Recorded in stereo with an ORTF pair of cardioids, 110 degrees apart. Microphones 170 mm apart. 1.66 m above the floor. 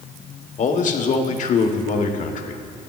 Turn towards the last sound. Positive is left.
turn(degrees=45)